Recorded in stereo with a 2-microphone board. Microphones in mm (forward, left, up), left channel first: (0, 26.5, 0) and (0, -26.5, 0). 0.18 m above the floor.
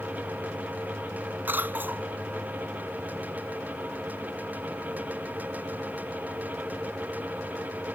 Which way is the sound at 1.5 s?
40° right (ahead or behind).